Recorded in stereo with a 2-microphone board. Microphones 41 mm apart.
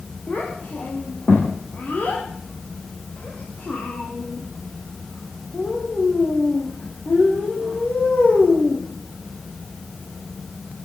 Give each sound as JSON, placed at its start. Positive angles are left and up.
{"t": 0.3, "sound": "a child speaking", "side_deg": 35, "distance_m": 7.5}